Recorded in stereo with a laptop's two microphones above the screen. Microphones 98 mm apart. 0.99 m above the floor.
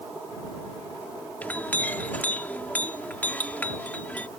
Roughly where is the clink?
Centre.